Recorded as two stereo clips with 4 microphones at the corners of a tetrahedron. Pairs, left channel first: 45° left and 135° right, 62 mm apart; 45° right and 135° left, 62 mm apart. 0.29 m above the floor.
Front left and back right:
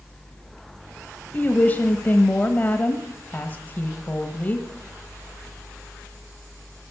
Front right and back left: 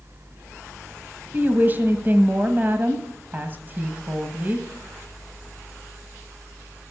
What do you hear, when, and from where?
1.3 s a woman speaking: 95° left, 1.2 m